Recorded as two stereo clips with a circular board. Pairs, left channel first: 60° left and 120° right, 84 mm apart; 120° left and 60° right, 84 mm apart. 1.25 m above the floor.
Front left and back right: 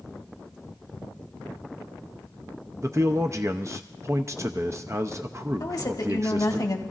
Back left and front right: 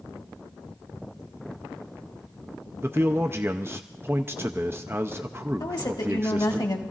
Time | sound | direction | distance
2.8 | a man speaking | 100° right | 0.6 m
5.6 | a woman speaking | 95° left | 1.6 m